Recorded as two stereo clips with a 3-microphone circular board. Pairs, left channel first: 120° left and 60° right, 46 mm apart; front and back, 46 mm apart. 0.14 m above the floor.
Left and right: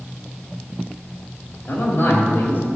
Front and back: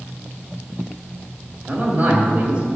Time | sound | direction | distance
1.7 | a man speaking | 140° left | 3 m